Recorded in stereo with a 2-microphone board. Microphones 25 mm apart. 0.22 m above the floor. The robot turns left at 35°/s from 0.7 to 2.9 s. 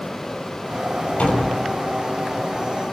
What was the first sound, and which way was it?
A door slam, 60° left (ahead or behind).